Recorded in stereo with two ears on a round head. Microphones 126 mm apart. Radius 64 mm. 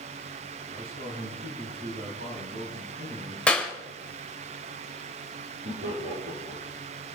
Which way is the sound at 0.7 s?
80° right.